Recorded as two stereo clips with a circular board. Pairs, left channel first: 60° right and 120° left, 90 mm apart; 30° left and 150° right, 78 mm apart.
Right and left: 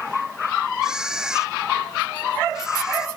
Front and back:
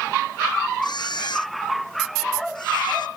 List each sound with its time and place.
0.8 s a camera shutter: 35° left